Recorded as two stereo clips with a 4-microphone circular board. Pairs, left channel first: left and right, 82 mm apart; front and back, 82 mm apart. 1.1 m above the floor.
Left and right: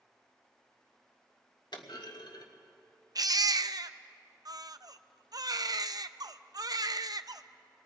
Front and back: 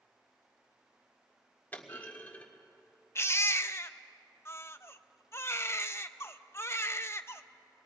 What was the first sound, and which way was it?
A clunk, 70° left.